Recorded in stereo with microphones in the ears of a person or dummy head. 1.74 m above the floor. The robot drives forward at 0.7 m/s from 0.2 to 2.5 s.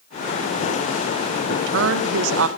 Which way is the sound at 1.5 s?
55° right (ahead or behind).